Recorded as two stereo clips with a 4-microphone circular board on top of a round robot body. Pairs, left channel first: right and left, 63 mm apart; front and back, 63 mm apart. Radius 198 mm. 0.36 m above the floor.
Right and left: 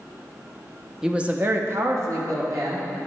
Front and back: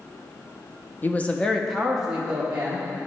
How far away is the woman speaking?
About 1.0 m.